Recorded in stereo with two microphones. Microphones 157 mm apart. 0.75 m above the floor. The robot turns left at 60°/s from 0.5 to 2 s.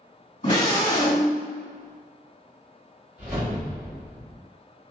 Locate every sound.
0.4 s a scream: 70° left, 1.8 m; by 1.4 s 15° left, 1.8 m
3.2 s a whoosh: 10° right (ahead or behind), 1.2 m